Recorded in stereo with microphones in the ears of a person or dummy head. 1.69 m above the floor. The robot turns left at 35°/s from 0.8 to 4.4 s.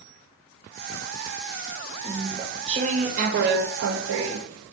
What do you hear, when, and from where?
2.0 s chewing: 15° right, 1.2 m; by 4.7 s 100° right, 1.2 m